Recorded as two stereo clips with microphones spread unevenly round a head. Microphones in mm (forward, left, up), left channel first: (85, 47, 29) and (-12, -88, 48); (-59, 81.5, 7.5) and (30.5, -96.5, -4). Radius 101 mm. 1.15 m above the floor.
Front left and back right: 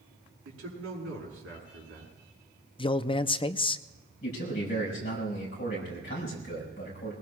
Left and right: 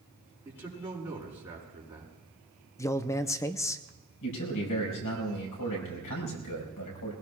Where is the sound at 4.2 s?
105° left, 4.5 m.